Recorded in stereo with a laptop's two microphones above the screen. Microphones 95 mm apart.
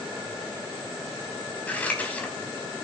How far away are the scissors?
About 3.5 m.